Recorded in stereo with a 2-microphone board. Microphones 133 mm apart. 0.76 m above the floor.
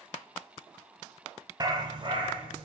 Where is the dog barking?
30° right (ahead or behind), 1.1 m; by 2.7 s 40° right (ahead or behind), 2.5 m.